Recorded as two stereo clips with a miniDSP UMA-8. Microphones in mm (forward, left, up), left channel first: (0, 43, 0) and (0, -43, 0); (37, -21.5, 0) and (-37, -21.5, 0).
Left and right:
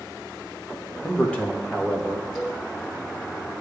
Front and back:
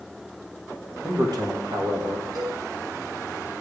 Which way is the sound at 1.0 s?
155° left.